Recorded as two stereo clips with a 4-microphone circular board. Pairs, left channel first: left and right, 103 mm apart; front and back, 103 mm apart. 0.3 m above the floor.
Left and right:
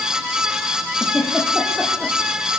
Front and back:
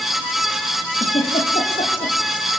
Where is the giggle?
5° left, 6 m.